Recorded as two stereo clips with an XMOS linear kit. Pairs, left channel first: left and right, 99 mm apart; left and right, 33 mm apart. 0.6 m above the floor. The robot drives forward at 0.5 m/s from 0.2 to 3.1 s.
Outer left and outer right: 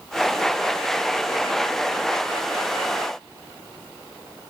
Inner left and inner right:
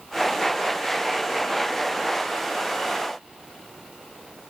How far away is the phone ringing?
I don't hear a phone ringing.